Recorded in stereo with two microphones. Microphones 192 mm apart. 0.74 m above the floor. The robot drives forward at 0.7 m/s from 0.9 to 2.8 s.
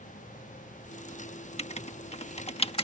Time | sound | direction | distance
1.6 | writing | 35° left (ahead or behind) | ?